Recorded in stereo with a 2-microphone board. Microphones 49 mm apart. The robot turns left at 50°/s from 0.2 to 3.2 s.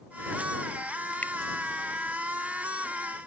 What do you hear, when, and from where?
1.2 s a finger snap: 30° left (ahead or behind); by 1.3 s 25° left (ahead or behind)